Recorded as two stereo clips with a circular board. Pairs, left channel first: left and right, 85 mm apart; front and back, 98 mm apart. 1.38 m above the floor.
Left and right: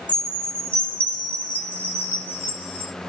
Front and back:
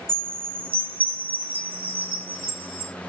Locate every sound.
0.1 s a chime: 160° left, 2 m